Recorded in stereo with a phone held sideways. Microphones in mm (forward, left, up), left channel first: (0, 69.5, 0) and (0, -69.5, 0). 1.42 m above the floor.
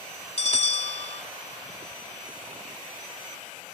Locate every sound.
0.4 s a bell: 50° left (ahead or behind)